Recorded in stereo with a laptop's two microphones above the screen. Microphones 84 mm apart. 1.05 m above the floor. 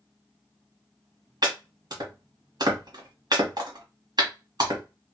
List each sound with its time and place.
1.4 s chopping: 50° right (ahead or behind), 1.2 m